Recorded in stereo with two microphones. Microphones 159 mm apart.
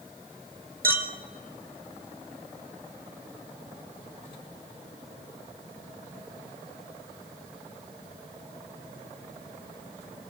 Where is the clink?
70° right (ahead or behind), 2 m.